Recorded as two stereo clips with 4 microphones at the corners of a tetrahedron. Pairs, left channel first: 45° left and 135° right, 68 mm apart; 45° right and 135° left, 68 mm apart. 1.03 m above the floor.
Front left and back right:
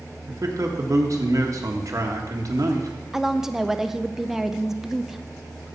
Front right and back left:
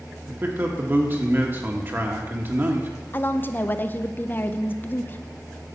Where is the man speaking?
170° right, 1.4 m.